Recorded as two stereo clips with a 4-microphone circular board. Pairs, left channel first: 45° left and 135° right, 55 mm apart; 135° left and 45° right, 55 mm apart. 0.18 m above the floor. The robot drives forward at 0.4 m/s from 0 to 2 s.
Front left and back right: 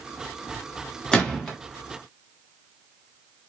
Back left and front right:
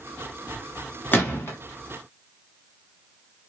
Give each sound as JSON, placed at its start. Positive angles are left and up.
{"t": 1.1, "sound": "a gunshot", "azimuth_deg": 110, "distance_m": 1.0}